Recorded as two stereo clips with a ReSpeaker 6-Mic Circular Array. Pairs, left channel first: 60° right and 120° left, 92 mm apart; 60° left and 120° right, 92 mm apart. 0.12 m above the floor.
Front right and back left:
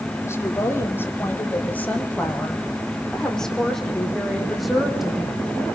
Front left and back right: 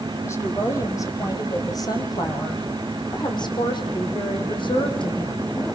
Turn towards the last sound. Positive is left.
turn(degrees=35)